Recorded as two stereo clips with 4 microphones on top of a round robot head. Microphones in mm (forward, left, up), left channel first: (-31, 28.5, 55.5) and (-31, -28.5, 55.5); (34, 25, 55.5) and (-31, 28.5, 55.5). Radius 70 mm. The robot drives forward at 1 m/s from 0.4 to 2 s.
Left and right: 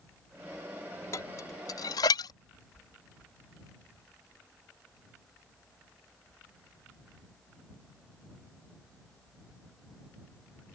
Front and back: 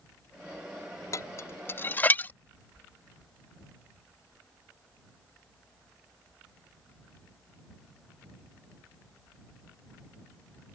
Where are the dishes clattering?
35° left; by 2.3 s 60° left.